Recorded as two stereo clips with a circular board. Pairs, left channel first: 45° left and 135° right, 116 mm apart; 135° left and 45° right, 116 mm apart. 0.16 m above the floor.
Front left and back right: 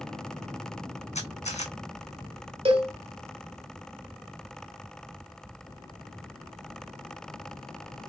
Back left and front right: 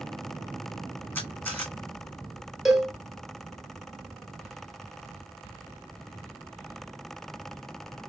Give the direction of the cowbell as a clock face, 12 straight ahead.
4 o'clock.